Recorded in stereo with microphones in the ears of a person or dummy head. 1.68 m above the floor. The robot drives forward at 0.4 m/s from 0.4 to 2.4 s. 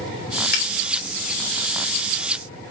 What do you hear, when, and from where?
0.5 s a finger snap: 50° left (ahead or behind), 3.5 m